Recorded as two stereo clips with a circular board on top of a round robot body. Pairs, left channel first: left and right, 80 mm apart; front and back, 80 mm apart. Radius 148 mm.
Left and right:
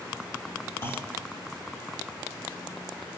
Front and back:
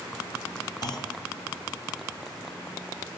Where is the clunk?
35° left, 2.5 m.